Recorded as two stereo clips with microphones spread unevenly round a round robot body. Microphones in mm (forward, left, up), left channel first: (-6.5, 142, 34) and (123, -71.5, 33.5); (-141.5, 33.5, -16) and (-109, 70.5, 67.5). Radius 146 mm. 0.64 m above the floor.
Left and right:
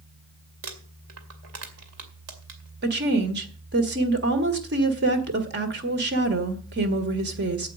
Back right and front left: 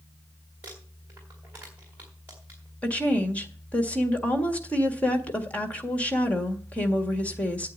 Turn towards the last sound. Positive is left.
turn(degrees=-110)